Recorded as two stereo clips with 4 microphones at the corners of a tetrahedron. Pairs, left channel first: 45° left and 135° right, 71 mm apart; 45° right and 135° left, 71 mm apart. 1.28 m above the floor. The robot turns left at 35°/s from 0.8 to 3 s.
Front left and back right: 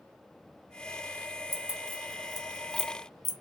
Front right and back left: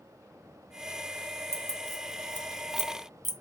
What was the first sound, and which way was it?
Keys jangling, 90° left.